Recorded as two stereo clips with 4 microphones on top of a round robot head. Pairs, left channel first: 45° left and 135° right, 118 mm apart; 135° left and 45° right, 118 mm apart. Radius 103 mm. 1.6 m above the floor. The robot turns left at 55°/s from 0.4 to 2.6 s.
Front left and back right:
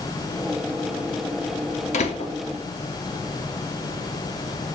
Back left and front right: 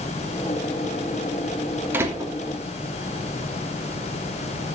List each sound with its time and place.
1.9 s a door slam: 25° left, 3 m; by 2.3 s 5° left, 3 m